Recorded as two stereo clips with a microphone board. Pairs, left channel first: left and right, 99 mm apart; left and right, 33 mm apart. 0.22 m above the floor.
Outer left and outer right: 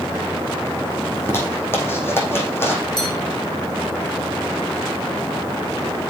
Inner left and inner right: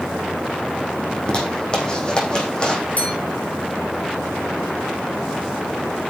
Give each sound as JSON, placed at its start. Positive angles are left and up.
{"t": 1.1, "sound": "a zipper", "side_deg": 25, "distance_m": 4.5}
{"t": 3.0, "sound": "a bell", "side_deg": 45, "distance_m": 3.0}